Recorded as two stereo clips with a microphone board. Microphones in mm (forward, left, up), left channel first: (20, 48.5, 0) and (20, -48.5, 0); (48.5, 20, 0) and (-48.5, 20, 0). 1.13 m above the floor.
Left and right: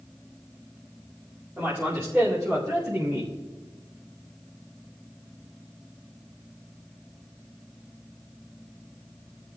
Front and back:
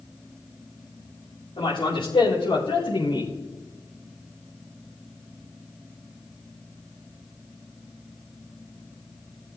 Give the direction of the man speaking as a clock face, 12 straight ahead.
1 o'clock.